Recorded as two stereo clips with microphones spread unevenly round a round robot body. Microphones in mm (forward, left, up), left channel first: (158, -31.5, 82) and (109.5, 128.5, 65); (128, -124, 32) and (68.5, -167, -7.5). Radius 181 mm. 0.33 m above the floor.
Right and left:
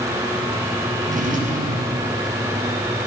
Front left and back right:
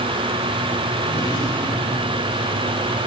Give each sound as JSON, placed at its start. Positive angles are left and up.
{"t": 1.0, "sound": "a drawer", "azimuth_deg": 65, "distance_m": 4.5}